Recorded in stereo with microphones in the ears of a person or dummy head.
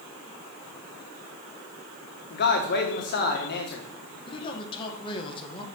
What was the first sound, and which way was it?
A man speaking, 60° left (ahead or behind).